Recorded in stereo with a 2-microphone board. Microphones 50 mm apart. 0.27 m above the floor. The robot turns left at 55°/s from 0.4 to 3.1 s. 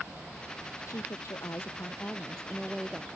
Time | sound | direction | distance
0.9 | a woman speaking | 95° left | ?